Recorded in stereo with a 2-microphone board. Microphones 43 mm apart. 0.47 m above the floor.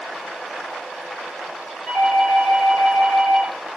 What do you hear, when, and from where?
1.9 s a doorbell: 30° left (ahead or behind), 2.0 m